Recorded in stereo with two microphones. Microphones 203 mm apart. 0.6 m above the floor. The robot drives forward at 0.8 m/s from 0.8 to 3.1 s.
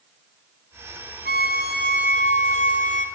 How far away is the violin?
About 4 m.